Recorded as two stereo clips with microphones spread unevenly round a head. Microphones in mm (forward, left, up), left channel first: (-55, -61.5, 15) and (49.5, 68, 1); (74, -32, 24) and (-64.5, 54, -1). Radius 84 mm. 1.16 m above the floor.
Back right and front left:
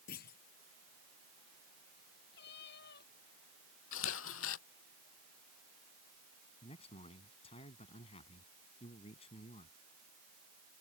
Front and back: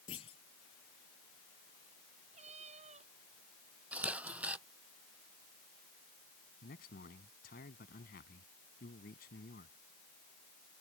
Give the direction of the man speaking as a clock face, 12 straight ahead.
2 o'clock.